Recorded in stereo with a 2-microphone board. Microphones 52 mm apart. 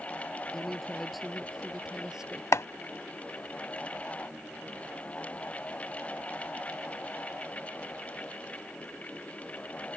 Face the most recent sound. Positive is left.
turn(degrees=70)  # may be behind; listen again after turning